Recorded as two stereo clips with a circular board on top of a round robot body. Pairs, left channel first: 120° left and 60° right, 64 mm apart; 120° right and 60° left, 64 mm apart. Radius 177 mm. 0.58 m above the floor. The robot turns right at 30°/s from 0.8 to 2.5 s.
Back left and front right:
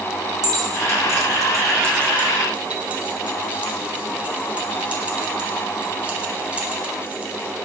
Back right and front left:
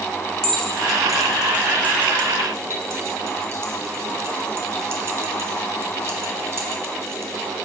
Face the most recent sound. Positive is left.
turn(degrees=10)